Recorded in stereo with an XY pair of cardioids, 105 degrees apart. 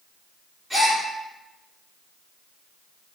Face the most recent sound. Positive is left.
turn(degrees=-5)